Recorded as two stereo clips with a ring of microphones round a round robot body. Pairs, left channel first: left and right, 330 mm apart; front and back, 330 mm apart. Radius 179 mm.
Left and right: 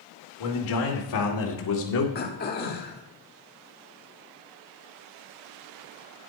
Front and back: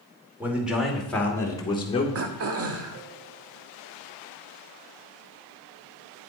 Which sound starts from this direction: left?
A man speaking, at 0.4 s.